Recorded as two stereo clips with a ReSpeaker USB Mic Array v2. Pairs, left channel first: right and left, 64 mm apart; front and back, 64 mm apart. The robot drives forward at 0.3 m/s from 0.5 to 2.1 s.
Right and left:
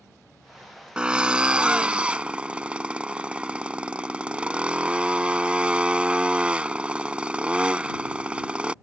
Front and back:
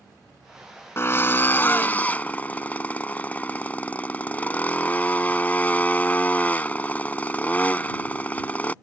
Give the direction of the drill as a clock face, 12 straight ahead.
11 o'clock.